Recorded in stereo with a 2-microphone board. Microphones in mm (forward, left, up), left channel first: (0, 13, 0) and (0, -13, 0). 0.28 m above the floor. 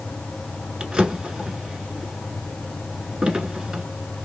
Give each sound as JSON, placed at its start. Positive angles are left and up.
{"t": 0.8, "sound": "a drawer", "side_deg": -35, "distance_m": 1.1}